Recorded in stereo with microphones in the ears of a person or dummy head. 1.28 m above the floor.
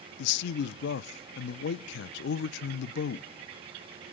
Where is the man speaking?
65° left (ahead or behind), 0.6 m.